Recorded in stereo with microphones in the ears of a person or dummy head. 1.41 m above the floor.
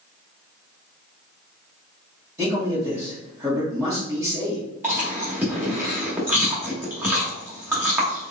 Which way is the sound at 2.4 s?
20° right (ahead or behind).